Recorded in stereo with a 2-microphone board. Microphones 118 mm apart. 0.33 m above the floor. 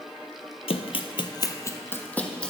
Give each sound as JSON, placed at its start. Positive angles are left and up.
{"t": 0.7, "sound": "running footsteps", "side_deg": 65, "distance_m": 0.6}